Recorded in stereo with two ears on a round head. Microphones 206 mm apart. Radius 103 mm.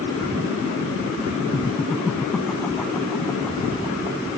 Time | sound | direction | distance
1.5 | laughter | 5° right (ahead or behind) | ?